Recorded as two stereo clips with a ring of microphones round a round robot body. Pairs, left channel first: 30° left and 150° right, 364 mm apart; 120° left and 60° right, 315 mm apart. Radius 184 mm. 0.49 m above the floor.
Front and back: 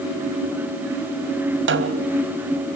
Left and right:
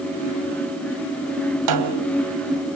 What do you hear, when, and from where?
1.7 s a snare drum: 90° right, 3 m